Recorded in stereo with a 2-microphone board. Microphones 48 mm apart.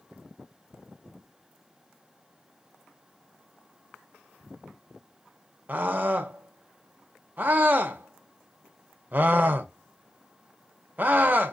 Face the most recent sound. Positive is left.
turn(degrees=-35)  # may be behind; listen again after turning